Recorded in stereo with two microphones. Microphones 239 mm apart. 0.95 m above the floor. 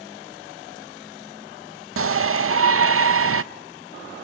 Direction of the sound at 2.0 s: 60° right (ahead or behind).